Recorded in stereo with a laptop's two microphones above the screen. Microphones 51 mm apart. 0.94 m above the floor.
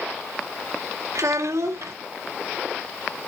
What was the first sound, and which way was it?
A child speaking, 75° right (ahead or behind).